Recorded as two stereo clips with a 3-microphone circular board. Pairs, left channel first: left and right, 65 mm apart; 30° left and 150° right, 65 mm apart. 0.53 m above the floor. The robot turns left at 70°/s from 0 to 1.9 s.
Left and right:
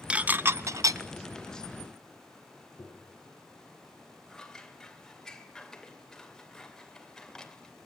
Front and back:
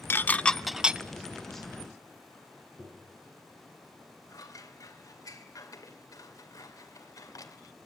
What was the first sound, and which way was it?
Dishes clattering, 20° right.